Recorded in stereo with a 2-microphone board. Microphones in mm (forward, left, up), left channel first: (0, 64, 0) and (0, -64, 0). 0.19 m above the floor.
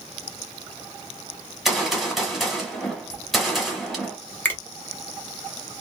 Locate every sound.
1.6 s a gunshot: centre (ahead or behind), 1.1 m
4.5 s a finger snap: 15° left (ahead or behind), 1.1 m